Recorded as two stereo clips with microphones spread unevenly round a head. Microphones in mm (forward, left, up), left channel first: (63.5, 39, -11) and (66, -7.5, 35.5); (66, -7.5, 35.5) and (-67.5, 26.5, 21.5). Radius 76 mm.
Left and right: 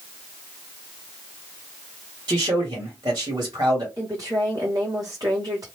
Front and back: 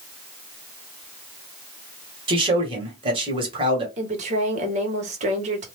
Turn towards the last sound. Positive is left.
turn(degrees=-155)